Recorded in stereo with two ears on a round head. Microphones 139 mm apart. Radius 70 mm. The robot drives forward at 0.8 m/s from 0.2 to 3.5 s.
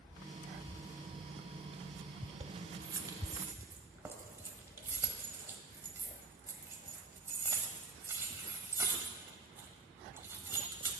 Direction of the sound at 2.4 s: 30° right (ahead or behind).